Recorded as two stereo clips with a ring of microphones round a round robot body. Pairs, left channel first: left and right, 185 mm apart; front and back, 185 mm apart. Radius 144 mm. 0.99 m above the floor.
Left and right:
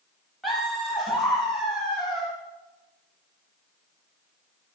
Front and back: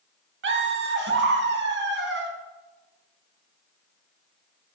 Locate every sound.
0.4 s laughter: straight behind, 1.3 m